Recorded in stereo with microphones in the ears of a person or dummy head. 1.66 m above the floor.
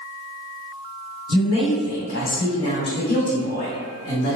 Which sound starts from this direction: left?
A woman speaking, at 1.3 s.